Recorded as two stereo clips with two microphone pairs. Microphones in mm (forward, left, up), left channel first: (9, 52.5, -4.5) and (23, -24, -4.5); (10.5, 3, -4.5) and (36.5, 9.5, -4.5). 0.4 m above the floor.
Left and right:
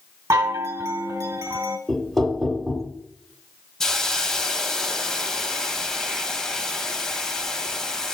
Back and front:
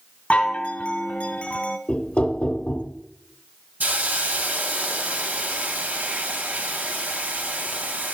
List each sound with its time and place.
0.3 s a chime: 125° right, 0.7 m
1.9 s knocking: 175° right, 0.8 m
3.8 s a hiss: 20° left, 0.6 m